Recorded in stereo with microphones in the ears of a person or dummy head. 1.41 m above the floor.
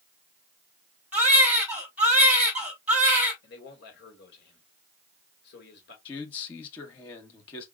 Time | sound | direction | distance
1.1 | a baby crying | centre (ahead or behind) | 2.0 m
3.4 | a man speaking | 75° left (ahead or behind) | 2 m
6.0 | a man speaking | 35° left (ahead or behind) | 1.3 m